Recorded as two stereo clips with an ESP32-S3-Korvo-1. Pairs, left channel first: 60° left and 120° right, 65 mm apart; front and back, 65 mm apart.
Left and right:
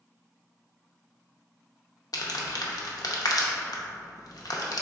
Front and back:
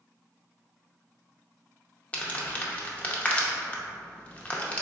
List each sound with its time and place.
2.1 s crumpling: 65° left, 0.5 m